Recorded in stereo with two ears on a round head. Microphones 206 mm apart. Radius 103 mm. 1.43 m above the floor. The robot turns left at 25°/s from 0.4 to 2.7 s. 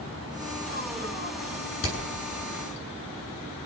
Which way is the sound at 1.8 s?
65° left (ahead or behind).